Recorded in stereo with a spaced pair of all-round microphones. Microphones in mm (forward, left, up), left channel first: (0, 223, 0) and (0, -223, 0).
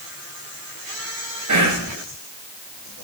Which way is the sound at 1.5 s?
40° right (ahead or behind).